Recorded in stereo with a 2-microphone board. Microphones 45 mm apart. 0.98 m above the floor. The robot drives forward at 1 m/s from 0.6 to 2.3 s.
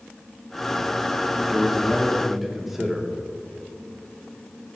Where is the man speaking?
10° right (ahead or behind), 1.1 m; by 3.1 s 5° right (ahead or behind), 2 m.